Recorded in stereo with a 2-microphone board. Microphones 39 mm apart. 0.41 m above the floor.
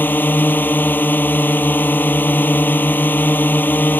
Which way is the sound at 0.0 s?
50° left (ahead or behind).